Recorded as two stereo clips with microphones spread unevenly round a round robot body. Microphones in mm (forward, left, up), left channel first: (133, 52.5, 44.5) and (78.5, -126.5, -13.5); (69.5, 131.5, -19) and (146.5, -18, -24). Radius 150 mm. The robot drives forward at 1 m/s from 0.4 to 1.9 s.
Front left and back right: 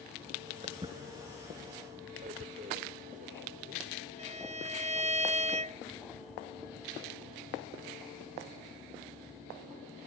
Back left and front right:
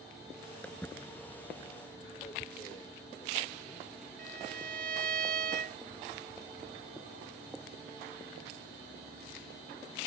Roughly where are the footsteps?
Behind.